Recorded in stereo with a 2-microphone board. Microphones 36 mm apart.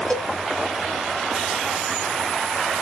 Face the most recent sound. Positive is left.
turn(degrees=35)  # may be behind; listen again after turning